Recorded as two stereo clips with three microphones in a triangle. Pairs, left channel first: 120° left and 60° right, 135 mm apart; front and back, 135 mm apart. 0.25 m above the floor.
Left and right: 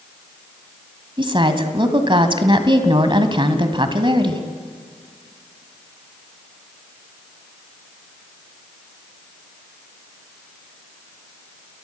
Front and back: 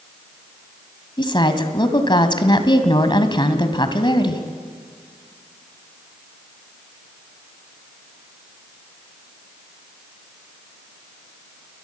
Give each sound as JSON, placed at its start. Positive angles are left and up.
{"t": 1.2, "sound": "a woman speaking", "azimuth_deg": -35, "distance_m": 1.9}